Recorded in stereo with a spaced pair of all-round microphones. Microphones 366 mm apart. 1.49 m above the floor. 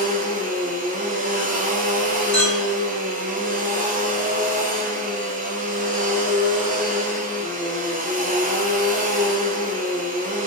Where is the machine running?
20° right (ahead or behind), 0.7 m.